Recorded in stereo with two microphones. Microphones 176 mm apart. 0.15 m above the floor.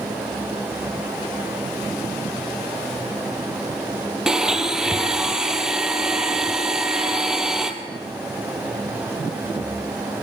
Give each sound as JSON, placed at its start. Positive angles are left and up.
{"t": 4.3, "sound": "a blender", "side_deg": -5, "distance_m": 1.9}